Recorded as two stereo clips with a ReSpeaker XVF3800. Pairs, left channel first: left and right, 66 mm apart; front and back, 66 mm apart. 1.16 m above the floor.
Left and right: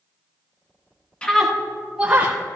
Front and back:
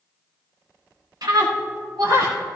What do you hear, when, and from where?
1.2 s a scream: 165° left, 1.5 m; by 2.4 s 155° right, 2.5 m